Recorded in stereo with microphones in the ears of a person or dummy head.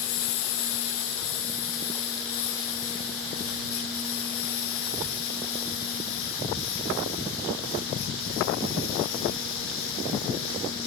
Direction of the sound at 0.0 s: 75° left (ahead or behind).